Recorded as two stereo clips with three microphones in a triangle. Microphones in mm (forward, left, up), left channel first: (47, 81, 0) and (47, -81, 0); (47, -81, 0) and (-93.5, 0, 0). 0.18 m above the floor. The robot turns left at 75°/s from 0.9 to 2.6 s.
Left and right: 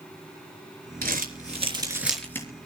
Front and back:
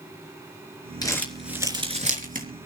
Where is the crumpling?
95° right, 3.5 m; by 2.5 s 160° left, 3.5 m.